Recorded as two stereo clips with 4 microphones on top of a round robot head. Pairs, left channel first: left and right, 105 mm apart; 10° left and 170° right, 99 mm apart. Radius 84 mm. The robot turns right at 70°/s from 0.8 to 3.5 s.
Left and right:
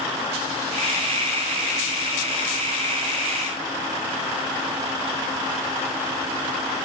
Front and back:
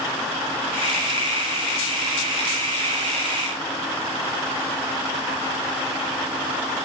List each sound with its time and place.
Only background noise.